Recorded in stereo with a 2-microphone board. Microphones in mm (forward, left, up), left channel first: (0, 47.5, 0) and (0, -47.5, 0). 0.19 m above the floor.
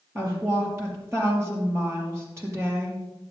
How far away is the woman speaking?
About 5 m.